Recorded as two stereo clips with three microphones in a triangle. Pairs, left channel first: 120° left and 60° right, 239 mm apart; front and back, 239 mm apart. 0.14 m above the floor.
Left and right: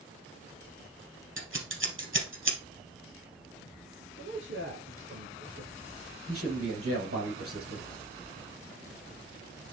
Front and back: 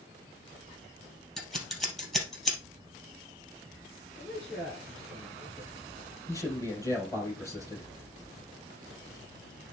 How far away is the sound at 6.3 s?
About 4 m.